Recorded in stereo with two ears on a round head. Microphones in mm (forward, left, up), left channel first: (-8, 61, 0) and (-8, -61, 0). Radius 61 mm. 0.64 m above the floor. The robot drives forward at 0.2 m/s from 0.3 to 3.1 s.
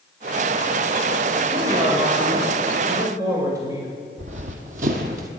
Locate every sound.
1.5 s a man speaking: 30° right (ahead or behind), 2.5 m; by 3.9 s 25° right (ahead or behind), 2.5 m
4.2 s running footsteps: 55° right (ahead or behind), 1.6 m; by 5.3 s 70° right (ahead or behind), 1.5 m